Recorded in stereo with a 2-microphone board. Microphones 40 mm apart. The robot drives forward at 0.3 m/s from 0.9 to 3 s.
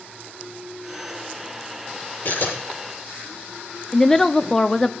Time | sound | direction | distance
2.2 | a camera shutter | 50° left (ahead or behind) | 8.5 m
3.9 | a woman speaking | 10° left (ahead or behind) | 0.6 m